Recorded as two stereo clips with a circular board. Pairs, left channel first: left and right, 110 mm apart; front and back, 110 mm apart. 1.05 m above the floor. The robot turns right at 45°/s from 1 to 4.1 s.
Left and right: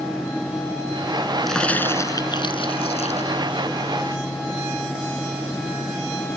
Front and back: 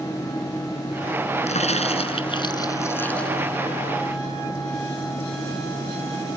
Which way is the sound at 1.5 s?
Straight ahead.